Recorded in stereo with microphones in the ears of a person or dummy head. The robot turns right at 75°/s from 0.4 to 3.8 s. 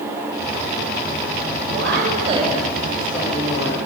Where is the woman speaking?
70° right, 8 m; by 3.8 s 85° left, 8 m.